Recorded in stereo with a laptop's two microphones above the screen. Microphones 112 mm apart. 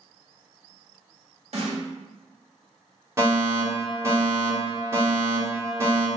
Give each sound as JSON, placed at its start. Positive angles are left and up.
{"t": 1.5, "sound": "a snare drum", "side_deg": -60, "distance_m": 1.3}
{"t": 3.2, "sound": "a fire alarm", "side_deg": -25, "distance_m": 1.3}